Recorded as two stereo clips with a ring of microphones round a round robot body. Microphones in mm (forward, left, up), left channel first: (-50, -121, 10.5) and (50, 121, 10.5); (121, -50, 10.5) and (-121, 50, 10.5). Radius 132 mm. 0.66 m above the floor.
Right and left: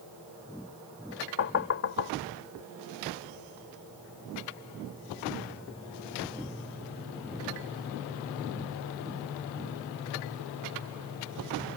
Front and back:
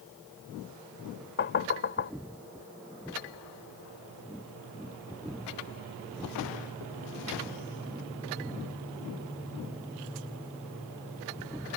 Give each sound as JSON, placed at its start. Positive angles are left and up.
{"t": 1.4, "sound": "knocking", "azimuth_deg": -70}